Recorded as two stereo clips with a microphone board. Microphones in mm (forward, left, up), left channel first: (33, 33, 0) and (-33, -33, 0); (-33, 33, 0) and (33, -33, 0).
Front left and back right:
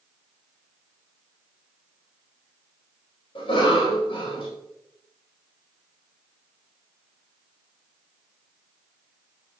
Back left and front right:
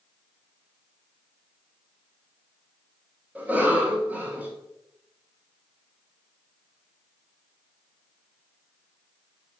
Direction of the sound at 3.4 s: 25° left.